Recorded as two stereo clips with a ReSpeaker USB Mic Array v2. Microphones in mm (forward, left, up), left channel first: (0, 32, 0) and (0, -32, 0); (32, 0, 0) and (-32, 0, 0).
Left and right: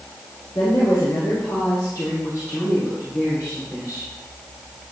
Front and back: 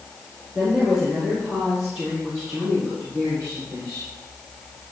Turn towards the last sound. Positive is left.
turn(degrees=145)